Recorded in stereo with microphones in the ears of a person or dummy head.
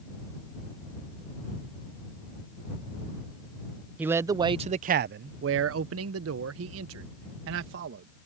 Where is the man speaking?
10° right (ahead or behind); by 8.1 s 70° right (ahead or behind).